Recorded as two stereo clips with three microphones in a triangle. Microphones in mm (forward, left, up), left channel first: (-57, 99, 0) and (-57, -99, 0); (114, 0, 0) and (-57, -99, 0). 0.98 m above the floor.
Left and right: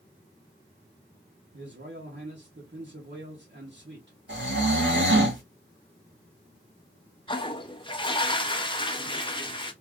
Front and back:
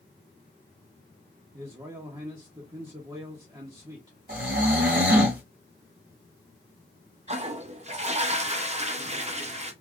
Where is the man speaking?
85° right, 1.0 m.